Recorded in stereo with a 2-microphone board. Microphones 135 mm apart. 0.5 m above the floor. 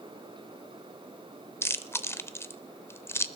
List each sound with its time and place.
1.6 s chewing: 20° left (ahead or behind), 0.6 m